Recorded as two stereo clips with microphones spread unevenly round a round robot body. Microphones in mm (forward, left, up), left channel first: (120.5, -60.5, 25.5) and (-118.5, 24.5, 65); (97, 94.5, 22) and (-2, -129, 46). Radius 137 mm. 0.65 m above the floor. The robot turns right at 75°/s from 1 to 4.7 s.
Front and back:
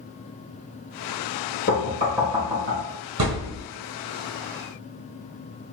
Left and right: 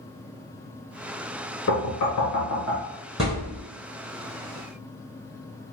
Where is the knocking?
35° left, 1.7 m; by 2.8 s 125° left, 1.7 m.